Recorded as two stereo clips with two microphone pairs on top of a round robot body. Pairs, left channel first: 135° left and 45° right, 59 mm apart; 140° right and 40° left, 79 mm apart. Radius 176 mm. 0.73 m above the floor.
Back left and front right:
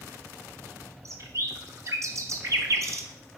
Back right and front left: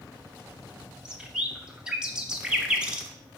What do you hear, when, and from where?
1.1 s a bird: 35° right, 1.2 m